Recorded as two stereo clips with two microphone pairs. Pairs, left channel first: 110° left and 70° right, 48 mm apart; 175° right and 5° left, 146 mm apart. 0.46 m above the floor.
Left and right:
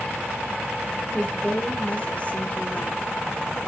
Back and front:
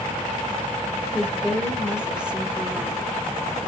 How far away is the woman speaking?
About 1.1 m.